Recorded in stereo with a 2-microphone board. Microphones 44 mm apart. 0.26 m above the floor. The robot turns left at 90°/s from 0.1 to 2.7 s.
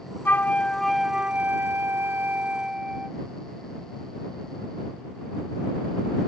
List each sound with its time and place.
0.2 s a flute: 60° left; by 3.2 s 160° right